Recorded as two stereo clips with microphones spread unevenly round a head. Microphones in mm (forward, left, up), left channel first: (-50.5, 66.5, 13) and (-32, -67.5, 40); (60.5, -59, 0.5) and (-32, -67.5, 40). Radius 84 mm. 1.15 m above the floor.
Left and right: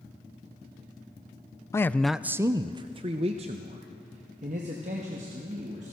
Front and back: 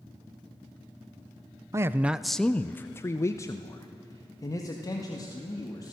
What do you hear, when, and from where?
1.7 s a man speaking: 110° left, 0.5 m; by 5.9 s 35° right, 2.5 m